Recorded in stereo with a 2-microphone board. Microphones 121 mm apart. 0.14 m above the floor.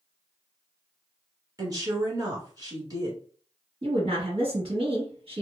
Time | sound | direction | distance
1.6 | a woman speaking | 30° right (ahead or behind) | 1.3 m
3.8 | a woman speaking | 45° right (ahead or behind) | 1.9 m